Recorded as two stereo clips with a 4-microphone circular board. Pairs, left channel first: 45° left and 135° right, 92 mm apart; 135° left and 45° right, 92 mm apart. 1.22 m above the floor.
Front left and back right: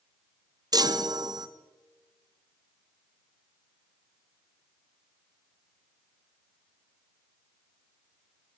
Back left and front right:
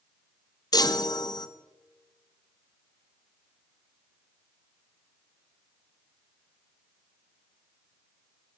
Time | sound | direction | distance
0.7 | a chime | straight behind | 0.7 m